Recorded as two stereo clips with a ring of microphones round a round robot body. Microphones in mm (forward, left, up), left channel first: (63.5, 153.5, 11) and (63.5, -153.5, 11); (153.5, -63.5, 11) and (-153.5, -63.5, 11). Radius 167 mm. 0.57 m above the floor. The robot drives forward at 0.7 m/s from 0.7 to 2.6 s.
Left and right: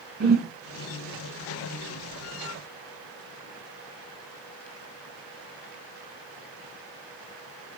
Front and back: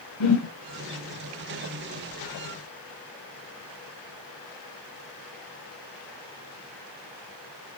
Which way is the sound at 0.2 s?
30° right.